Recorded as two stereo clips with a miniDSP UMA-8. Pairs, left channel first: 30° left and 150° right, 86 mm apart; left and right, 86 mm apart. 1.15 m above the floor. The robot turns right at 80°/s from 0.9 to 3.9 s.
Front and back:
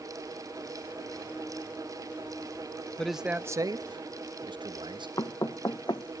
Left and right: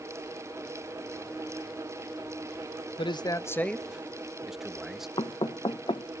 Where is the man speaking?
110° left, 0.9 m; by 5.1 s 175° right, 0.9 m.